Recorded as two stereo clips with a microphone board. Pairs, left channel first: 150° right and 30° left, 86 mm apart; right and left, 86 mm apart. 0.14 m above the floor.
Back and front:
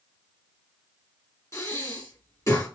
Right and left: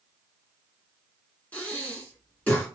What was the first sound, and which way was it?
Breathing, 145° right.